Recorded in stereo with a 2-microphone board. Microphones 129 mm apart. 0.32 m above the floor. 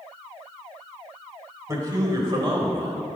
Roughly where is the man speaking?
Right.